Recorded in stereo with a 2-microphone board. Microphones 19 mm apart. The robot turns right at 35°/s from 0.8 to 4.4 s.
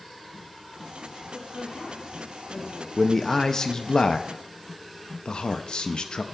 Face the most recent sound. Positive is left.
turn(degrees=65)